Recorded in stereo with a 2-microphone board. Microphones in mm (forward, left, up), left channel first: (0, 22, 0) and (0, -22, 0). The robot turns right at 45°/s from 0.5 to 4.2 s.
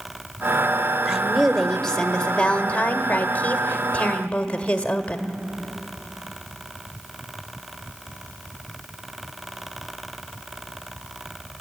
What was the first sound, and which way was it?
A woman speaking, straight ahead.